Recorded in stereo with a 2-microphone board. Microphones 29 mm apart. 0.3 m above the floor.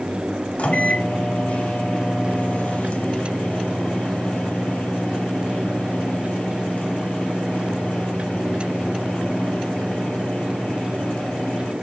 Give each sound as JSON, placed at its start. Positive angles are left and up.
{"t": 0.6, "sound": "a microwave", "side_deg": 45, "distance_m": 1.3}